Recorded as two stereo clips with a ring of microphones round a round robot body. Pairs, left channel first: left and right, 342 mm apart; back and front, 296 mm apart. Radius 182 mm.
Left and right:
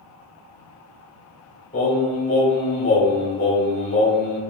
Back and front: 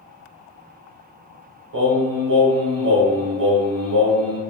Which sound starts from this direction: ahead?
Singing, at 1.7 s.